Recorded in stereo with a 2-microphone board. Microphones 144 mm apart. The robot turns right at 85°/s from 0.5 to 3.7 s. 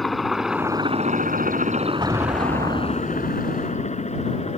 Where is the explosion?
150° right; by 3.5 s 25° right.